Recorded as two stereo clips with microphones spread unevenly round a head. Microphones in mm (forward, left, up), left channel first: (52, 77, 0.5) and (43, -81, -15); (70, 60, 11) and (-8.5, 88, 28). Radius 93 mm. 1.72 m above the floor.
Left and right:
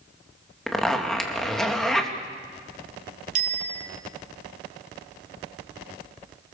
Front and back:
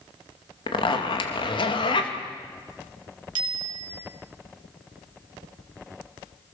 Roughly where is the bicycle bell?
Behind right.